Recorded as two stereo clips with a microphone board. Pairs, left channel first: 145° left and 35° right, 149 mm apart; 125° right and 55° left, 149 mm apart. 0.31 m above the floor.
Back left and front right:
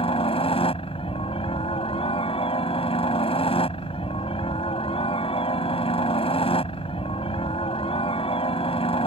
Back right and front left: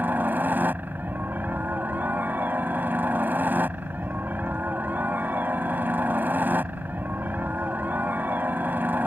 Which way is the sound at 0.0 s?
130° left.